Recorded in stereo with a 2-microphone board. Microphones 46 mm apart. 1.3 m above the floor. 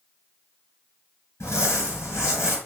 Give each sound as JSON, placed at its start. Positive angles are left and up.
{"t": 1.4, "sound": "crumpling", "side_deg": 70, "distance_m": 3.0}